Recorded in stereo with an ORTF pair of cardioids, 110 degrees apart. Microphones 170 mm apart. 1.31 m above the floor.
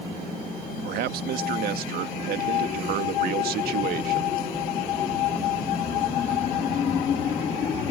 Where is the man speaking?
65° right.